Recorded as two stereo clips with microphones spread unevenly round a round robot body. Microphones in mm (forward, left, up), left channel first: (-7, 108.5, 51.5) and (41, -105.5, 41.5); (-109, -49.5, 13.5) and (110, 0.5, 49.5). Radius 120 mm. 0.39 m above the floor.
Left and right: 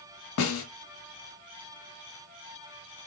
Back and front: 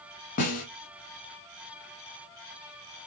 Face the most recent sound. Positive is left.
turn(degrees=135)